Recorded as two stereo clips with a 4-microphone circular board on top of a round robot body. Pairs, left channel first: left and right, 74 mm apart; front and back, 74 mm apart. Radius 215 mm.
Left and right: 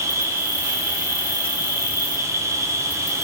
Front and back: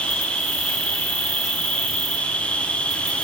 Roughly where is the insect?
Ahead right.